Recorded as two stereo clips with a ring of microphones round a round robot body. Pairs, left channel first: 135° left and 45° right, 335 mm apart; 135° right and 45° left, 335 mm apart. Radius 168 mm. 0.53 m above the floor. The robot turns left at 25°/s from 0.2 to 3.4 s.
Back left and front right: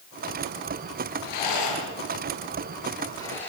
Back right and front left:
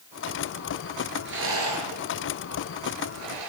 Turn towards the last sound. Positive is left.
turn(degrees=50)